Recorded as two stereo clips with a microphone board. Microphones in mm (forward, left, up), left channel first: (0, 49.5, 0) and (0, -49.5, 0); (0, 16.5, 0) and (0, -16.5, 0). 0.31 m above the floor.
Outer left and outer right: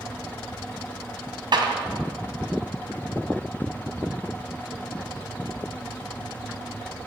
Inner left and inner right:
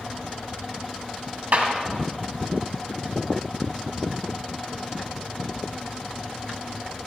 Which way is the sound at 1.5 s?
55° right (ahead or behind).